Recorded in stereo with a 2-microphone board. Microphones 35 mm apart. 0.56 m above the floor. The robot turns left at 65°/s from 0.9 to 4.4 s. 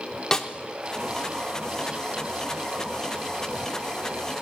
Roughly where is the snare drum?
Centre.